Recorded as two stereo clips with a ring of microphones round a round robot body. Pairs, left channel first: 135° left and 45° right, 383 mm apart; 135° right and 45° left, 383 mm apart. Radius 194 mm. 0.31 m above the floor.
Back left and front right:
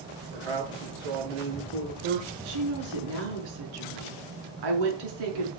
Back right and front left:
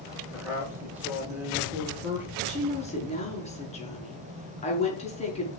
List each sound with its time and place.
0.3 s a man speaking: 40° right, 7 m
2.5 s a woman speaking: 60° right, 5.5 m